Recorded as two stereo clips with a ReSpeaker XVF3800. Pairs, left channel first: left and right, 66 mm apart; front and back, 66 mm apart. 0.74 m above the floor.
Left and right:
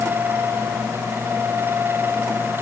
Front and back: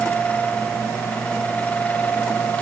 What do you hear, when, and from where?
Only background noise.